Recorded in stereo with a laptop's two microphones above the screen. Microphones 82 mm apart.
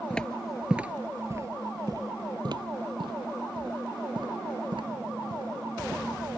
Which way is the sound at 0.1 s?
15° left (ahead or behind).